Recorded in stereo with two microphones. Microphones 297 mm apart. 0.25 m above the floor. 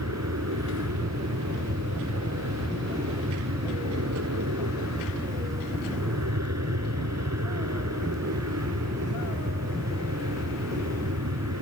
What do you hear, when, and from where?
0.0 s an aircraft: 60° right (ahead or behind)